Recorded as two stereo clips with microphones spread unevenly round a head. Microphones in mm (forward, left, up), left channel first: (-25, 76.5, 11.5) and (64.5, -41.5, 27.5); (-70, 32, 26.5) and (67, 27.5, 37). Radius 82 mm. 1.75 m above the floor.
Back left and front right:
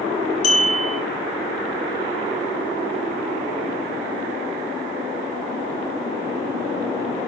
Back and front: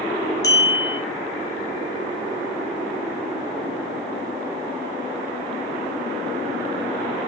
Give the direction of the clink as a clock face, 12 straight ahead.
8 o'clock.